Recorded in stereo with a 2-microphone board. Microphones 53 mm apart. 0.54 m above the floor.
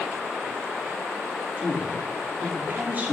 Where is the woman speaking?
30° right (ahead or behind), 0.9 m.